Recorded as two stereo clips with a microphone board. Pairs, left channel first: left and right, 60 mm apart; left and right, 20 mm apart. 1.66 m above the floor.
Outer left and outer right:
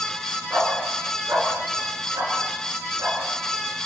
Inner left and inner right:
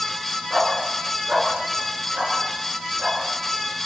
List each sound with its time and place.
0.5 s a dog barking: 50° right (ahead or behind), 7.5 m; by 3.2 s 65° right (ahead or behind), 8.5 m